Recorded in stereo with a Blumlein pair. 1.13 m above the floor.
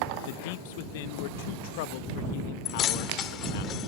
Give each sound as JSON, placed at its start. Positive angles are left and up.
{"t": 0.3, "sound": "a man speaking", "azimuth_deg": 50}
{"t": 2.6, "sound": "keys jangling", "azimuth_deg": 30}